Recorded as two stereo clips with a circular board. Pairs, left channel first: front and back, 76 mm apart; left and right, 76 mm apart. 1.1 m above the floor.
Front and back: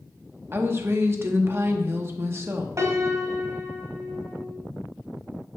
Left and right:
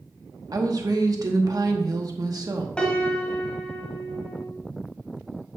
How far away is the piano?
About 1.2 m.